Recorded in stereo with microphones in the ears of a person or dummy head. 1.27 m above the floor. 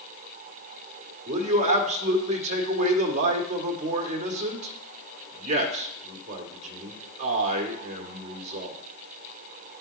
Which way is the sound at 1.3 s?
30° right (ahead or behind).